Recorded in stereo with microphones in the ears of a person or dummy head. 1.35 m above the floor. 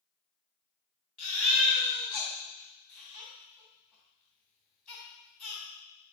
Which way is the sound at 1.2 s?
5° left (ahead or behind).